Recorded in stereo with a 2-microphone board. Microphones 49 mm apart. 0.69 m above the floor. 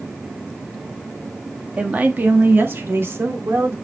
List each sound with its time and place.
1.8 s a woman speaking: 25° right (ahead or behind), 1.2 m; by 3.7 s 65° right (ahead or behind), 2.5 m